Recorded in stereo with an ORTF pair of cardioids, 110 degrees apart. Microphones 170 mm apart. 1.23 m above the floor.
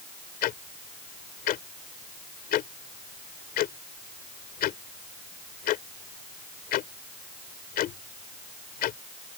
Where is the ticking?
65° left.